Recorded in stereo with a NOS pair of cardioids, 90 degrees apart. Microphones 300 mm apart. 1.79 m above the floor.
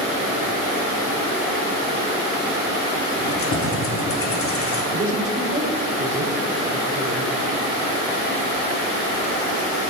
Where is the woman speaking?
25° right, 6 m.